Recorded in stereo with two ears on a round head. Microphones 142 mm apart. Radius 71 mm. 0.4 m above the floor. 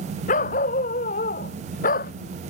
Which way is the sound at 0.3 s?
50° left (ahead or behind).